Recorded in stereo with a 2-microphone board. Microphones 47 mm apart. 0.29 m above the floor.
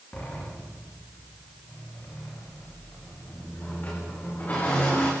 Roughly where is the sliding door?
Left.